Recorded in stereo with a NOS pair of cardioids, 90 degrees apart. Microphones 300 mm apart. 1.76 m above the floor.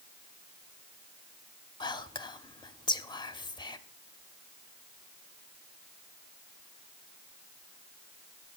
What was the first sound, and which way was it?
Whispering, 15° left.